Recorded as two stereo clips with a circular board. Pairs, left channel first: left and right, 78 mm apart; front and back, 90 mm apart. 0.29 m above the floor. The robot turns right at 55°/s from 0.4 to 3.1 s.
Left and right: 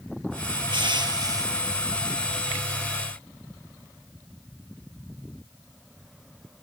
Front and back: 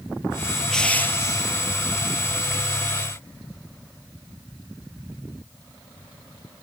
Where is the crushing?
85° right, 2.5 m; by 1.5 s 40° right, 2.5 m.